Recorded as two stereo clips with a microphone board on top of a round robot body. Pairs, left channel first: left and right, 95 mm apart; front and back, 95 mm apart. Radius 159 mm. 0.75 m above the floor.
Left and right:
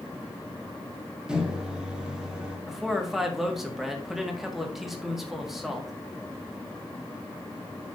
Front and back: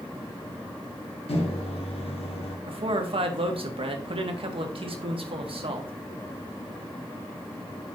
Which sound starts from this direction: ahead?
A microwave, at 1.3 s.